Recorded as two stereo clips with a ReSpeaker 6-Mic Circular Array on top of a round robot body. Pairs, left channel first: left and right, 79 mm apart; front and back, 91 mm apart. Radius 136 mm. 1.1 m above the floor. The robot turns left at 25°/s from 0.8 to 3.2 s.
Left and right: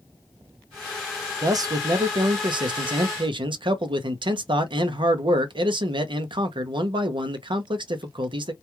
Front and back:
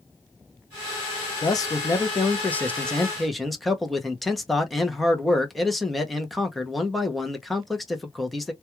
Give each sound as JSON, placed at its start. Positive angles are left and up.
{"t": 1.4, "sound": "a man speaking", "azimuth_deg": -45, "distance_m": 0.7}